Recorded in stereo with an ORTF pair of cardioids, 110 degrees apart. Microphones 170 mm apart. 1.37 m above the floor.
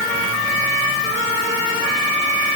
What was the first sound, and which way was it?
Only background noise.